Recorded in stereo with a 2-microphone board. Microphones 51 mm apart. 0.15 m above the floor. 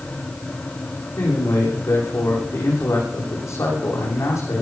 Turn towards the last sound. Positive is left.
turn(degrees=75)  # may be behind; listen again after turning